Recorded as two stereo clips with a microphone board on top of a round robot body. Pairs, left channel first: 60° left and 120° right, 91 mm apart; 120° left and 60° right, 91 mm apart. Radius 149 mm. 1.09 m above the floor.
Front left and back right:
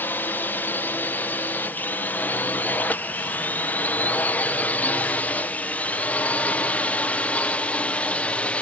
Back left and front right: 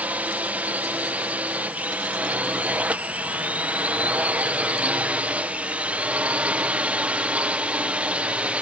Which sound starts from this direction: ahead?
A drone, at 0.0 s.